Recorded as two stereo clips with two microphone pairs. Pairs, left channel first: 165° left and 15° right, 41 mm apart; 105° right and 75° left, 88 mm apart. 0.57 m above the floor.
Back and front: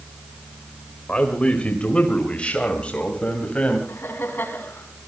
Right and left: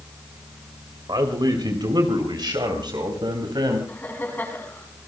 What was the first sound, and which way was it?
A man speaking, 105° left.